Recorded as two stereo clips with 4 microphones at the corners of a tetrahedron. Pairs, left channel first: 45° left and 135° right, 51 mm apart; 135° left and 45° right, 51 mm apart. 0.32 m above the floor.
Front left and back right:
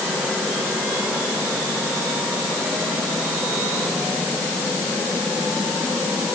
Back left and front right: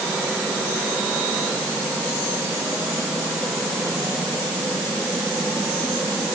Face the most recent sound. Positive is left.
No sound to turn to.